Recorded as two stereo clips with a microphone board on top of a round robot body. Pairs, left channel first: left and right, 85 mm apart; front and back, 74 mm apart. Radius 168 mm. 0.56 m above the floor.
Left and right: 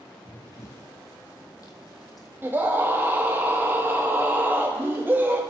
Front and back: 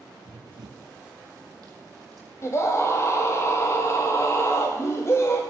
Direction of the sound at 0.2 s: 160° left.